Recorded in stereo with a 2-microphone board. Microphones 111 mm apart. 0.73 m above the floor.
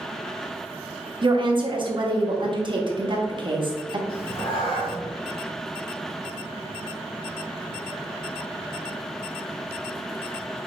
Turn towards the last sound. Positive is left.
turn(degrees=45)  # may be behind; listen again after turning